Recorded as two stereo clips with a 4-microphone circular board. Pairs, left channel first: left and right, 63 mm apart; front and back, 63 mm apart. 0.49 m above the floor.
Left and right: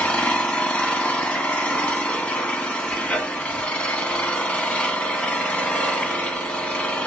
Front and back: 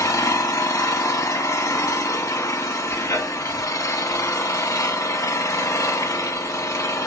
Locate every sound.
0.0 s an engine running: 20° left, 0.9 m